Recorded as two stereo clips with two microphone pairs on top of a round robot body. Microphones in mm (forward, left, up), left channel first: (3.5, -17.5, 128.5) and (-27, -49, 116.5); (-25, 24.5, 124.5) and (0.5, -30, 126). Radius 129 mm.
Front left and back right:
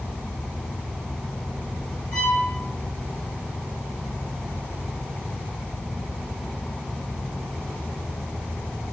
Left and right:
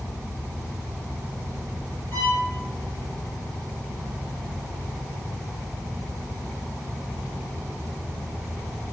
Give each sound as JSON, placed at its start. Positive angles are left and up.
{"t": 2.1, "sound": "a violin", "azimuth_deg": 60, "distance_m": 0.9}